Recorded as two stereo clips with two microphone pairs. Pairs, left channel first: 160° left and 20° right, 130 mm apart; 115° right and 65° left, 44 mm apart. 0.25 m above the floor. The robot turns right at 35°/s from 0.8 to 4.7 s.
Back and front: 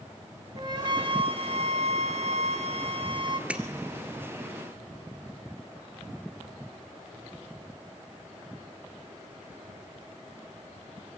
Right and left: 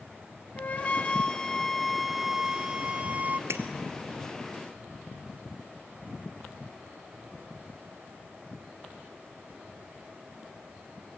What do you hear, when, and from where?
0.6 s a flute: 70° right, 1.2 m; by 3.4 s 25° left, 1.2 m
3.5 s breaking glass: 60° left, 1.5 m; by 3.6 s 65° left, 1.5 m